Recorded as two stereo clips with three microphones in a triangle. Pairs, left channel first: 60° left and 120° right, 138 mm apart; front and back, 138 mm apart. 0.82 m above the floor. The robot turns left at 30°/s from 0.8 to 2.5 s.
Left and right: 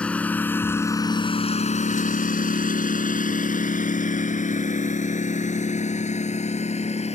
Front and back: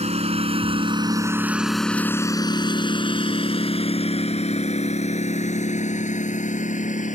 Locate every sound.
0.0 s a lawn mower: 140° left; by 7.2 s 25° left